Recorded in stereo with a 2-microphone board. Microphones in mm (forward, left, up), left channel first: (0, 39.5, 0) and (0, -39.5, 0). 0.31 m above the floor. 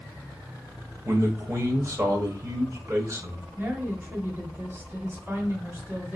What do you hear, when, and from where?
1.1 s a man speaking: 35° right (ahead or behind), 1.4 m
3.6 s a woman speaking: 25° right (ahead or behind), 1.7 m